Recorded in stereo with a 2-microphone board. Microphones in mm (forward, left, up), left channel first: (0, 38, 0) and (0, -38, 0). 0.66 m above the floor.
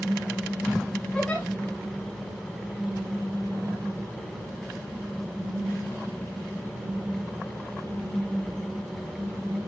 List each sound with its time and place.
1.1 s a giggle: 15° left (ahead or behind), 4 m